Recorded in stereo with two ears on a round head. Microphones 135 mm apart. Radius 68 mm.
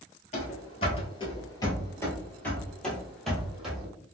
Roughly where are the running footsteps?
Left.